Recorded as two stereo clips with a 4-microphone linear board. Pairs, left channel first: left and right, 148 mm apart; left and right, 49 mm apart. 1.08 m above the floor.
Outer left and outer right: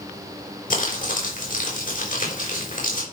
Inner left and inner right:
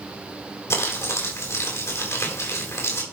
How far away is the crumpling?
About 4 m.